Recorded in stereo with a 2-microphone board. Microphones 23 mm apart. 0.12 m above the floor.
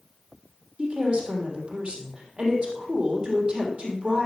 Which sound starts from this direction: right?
A woman speaking, at 0.8 s.